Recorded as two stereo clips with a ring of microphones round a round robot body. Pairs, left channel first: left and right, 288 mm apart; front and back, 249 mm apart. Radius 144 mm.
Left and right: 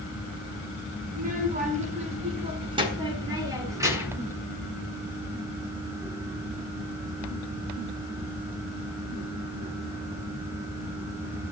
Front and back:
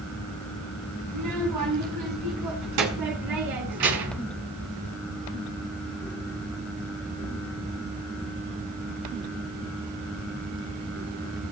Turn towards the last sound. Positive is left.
turn(degrees=-170)